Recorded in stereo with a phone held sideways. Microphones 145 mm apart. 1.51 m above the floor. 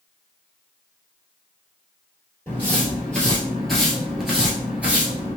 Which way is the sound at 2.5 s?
10° left (ahead or behind).